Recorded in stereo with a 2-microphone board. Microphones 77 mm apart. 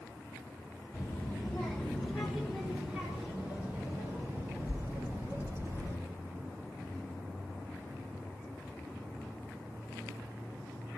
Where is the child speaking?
25° left (ahead or behind), 2.5 m; by 6.0 s 35° right (ahead or behind), 6 m.